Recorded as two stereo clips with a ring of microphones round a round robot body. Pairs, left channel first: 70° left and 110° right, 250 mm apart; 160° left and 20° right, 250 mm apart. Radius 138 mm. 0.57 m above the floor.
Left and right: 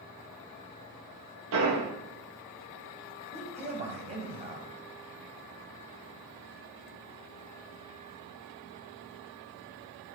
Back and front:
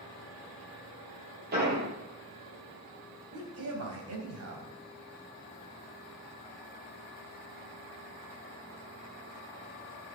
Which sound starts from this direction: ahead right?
A man speaking, at 3.3 s.